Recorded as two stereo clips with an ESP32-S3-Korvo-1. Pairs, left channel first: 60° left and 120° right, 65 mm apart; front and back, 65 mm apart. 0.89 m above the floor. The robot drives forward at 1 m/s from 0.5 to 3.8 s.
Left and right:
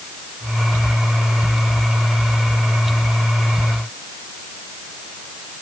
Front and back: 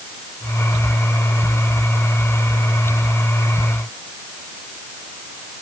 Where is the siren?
I don't hear a siren.